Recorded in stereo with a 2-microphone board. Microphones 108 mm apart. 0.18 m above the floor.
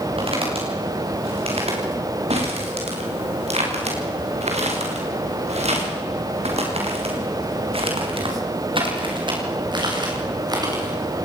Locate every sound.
0.2 s footsteps: 60° right (ahead or behind), 9.5 m; by 11.2 s 35° right (ahead or behind), 8 m